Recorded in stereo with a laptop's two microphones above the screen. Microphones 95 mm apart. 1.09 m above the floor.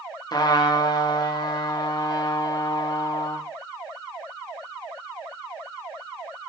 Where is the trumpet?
45° left (ahead or behind), 1.4 m.